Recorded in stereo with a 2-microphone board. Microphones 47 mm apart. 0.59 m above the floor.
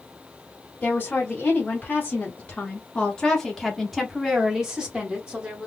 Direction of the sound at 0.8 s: 40° left (ahead or behind).